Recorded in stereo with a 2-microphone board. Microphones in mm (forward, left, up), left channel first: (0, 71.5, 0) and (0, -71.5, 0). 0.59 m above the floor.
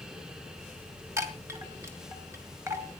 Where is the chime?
20° right (ahead or behind), 2.0 m.